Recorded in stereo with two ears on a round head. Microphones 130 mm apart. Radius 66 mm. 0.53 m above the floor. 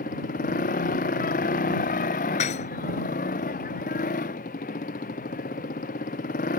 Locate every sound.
0.0 s a motorcycle: 60° left (ahead or behind)
2.4 s dishes clattering: 50° left (ahead or behind)